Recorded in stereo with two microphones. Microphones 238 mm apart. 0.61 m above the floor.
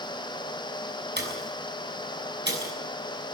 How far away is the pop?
About 6.5 m.